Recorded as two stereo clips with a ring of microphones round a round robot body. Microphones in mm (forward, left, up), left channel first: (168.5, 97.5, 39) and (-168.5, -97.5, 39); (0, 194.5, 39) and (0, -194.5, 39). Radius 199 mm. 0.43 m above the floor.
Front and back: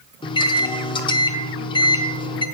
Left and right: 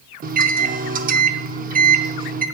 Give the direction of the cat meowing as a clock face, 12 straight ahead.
No cat meowing in this recording.